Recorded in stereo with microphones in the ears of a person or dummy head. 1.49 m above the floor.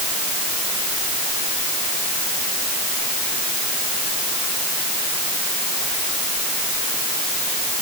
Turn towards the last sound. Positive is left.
No sound to turn to.